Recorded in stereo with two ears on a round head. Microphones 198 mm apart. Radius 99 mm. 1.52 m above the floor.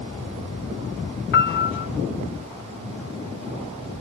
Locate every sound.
1.3 s a piano: 50° left (ahead or behind), 0.7 m